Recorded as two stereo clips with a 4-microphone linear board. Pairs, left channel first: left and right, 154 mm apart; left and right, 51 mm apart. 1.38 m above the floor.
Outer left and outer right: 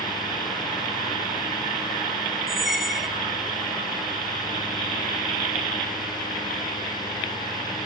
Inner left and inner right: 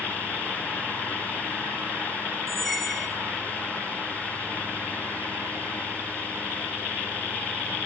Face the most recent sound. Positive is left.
turn(degrees=0)  # may be behind; listen again after turning